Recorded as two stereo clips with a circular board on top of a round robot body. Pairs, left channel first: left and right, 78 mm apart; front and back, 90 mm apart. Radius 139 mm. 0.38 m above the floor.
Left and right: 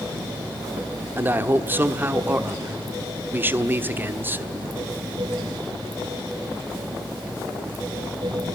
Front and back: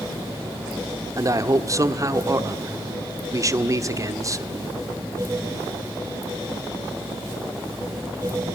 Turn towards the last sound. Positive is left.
turn(degrees=-145)